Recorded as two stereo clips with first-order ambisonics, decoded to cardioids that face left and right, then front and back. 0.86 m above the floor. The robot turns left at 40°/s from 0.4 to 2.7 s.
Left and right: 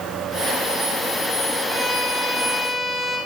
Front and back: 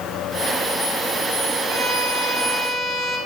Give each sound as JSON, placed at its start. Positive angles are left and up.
{"t": 1.7, "sound": "a violin", "azimuth_deg": -160, "distance_m": 2.5}